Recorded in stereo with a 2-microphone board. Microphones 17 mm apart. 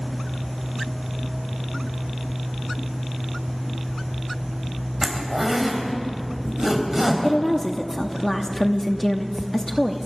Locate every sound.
5.0 s a zipper: 25° right (ahead or behind), 3.5 m
7.2 s a woman speaking: 25° left (ahead or behind), 1.0 m